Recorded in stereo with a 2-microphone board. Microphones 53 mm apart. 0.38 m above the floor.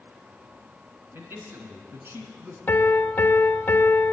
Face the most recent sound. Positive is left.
turn(degrees=35)  # may be behind; listen again after turning